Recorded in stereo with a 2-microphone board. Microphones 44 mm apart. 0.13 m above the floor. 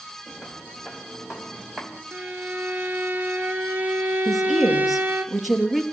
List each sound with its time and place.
0.3 s footsteps: centre (ahead or behind), 3.5 m; by 2.0 s 10° right (ahead or behind), 4 m
2.1 s a violin: 45° right (ahead or behind), 1.6 m
4.2 s a woman speaking: centre (ahead or behind), 3 m